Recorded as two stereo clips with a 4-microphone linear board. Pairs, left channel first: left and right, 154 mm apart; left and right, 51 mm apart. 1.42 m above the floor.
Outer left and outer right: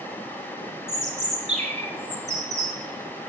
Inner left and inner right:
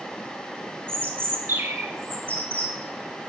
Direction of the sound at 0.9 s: 50° right (ahead or behind).